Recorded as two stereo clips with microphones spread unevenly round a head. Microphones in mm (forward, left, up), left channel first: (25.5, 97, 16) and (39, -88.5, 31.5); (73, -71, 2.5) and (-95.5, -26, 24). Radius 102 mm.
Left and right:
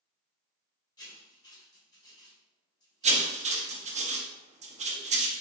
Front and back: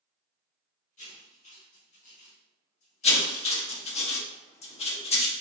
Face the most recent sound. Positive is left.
turn(degrees=-40)